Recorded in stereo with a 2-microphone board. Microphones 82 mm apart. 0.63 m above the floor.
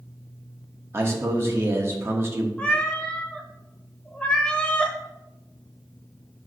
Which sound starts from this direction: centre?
A cat meowing, at 2.6 s.